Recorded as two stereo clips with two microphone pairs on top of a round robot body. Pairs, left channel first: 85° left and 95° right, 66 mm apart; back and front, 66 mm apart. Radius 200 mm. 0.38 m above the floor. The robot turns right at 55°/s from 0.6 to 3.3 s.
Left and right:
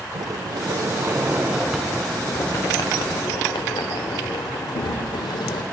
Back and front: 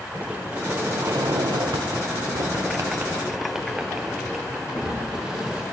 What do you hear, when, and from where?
0.1 s a sliding door: 70° right, 0.5 m; by 5.6 s 80° left, 0.5 m